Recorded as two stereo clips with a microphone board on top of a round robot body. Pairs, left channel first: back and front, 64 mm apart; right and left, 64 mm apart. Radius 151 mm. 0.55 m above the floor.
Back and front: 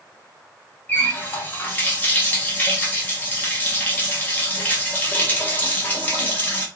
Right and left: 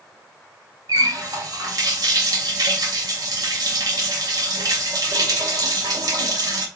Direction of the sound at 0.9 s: 115° left.